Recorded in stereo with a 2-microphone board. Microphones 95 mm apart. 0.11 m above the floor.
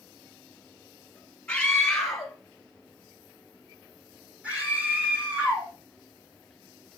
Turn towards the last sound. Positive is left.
turn(degrees=-20)  # may be behind; listen again after turning